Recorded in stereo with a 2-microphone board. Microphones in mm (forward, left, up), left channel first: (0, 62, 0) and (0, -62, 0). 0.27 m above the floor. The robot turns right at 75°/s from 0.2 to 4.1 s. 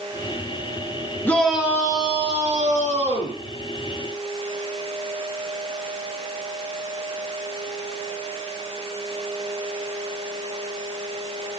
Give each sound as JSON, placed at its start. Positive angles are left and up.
{"t": 1.2, "sound": "a shout", "azimuth_deg": 165, "distance_m": 4.5}